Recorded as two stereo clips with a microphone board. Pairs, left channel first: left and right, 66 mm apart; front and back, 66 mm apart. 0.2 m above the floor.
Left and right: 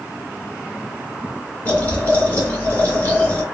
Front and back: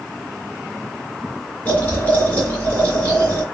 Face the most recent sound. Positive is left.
turn(degrees=45)